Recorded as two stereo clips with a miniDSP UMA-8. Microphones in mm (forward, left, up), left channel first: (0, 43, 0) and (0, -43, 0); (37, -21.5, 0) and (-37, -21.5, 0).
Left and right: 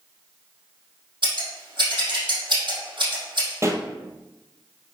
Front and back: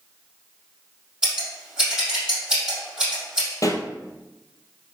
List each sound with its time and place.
1.2 s scissors: 105° right, 4 m
3.6 s a pop: 35° right, 1.2 m